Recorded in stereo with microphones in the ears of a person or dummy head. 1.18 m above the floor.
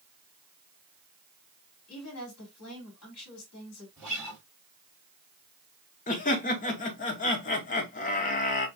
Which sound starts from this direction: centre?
A guitar, at 4.0 s.